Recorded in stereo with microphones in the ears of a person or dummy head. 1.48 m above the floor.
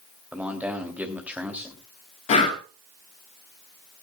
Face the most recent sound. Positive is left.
turn(degrees=30)  # may be behind; listen again after turning